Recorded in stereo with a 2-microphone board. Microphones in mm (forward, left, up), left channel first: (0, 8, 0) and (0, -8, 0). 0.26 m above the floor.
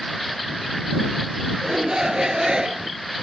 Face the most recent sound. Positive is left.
turn(degrees=-70)  # may be behind; listen again after turning